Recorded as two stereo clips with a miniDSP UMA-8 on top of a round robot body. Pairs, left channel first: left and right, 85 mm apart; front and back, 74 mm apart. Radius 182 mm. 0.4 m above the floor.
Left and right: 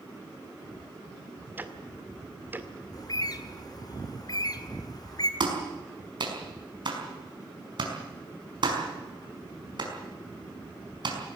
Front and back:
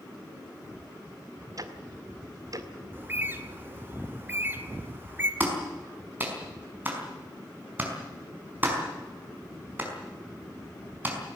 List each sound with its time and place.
1.6 s ticking: 155° right, 2 m
2.9 s a bird: 120° left, 2.0 m
5.4 s a clap: 115° right, 5 m